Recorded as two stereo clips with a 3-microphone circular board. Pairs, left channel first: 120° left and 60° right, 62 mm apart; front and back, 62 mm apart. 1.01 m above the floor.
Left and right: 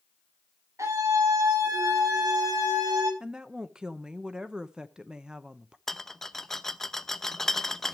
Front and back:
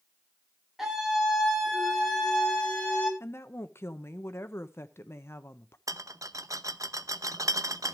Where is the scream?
95° right, 6.5 m; by 3.1 s 75° right, 7 m.